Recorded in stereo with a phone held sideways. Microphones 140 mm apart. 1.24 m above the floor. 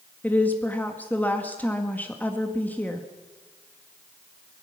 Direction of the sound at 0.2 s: 10° left (ahead or behind).